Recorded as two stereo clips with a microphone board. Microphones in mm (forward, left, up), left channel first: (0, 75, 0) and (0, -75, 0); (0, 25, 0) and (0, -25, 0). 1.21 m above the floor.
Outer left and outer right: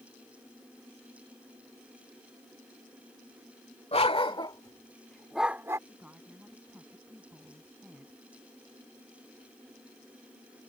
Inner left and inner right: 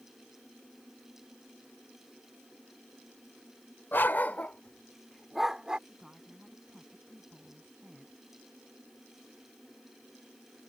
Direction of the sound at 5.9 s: 10° right (ahead or behind).